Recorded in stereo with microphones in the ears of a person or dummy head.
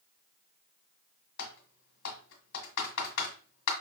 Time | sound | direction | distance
1.4 | typing on a keyboard | 70° left (ahead or behind) | 1.4 m